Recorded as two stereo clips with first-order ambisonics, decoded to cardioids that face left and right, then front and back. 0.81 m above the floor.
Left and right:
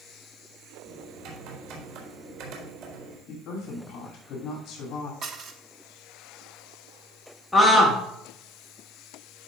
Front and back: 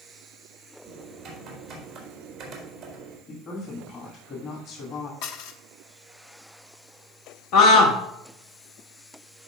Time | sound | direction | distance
0.8 | typing on a keyboard | 110° right | 3.5 m
3.3 | a woman speaking | 50° left | 2.5 m
5.2 | dishes clattering | 35° right | 0.8 m
7.5 | a scream | 5° left | 1.0 m